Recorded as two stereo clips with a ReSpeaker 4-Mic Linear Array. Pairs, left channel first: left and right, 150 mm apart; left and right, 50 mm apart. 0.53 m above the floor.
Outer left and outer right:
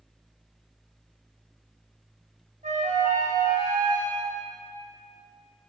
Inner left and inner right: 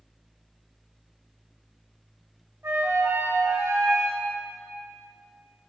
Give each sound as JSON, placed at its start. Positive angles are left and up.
{"t": 2.6, "sound": "a flute", "side_deg": -70, "distance_m": 2.5}